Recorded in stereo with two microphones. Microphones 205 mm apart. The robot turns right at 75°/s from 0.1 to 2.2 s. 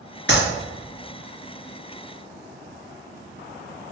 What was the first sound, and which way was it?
A clap, 60° left (ahead or behind).